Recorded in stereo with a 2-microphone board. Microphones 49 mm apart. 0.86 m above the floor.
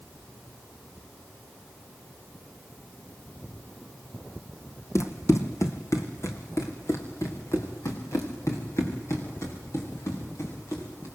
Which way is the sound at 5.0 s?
70° left (ahead or behind).